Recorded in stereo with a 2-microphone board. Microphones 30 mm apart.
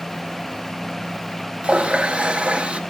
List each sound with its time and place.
1.6 s a running tap: 35° right (ahead or behind), 1.1 m